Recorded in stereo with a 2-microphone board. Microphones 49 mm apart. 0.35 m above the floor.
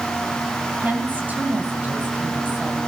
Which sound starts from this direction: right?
A woman speaking, at 0.8 s.